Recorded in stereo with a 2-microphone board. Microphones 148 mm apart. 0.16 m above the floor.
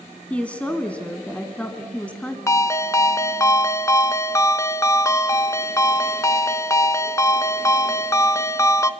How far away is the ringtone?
About 0.6 m.